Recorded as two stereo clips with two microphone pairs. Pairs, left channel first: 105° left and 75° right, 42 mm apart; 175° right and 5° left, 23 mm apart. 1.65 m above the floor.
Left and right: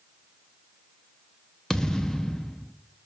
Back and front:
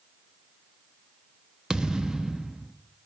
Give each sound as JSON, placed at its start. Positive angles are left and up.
{"t": 1.7, "sound": "a thud", "azimuth_deg": 35, "distance_m": 1.1}